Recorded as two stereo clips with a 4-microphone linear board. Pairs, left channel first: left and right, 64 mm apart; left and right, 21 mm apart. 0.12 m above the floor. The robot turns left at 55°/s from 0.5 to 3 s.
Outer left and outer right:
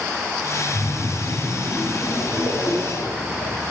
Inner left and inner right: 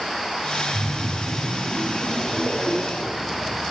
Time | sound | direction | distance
0.7 | a splash | 145° left | 7.5 m